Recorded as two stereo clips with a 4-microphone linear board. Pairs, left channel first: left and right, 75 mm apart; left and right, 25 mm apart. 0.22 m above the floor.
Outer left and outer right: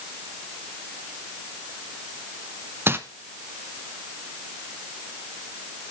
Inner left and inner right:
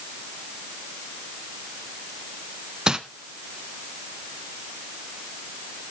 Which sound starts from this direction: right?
Crumpling, at 2.9 s.